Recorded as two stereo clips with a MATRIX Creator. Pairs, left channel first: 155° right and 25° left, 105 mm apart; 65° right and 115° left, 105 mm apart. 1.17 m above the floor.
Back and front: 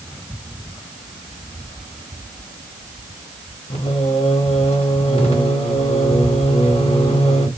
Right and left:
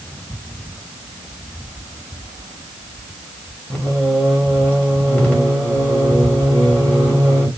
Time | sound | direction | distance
3.7 | singing | 145° right | 1.0 m